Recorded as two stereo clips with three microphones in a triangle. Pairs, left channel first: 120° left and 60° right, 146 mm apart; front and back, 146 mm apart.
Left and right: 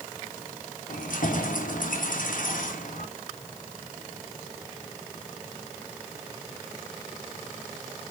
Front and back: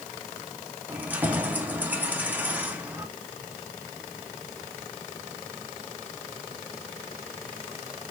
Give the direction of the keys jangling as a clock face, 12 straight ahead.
9 o'clock.